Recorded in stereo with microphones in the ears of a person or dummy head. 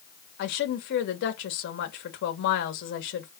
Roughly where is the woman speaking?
Left.